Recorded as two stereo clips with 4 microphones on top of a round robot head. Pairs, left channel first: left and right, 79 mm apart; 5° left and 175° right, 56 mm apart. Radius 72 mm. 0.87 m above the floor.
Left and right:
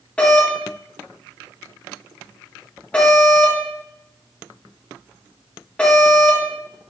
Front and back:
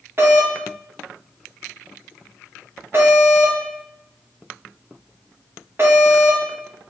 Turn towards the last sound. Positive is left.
turn(degrees=160)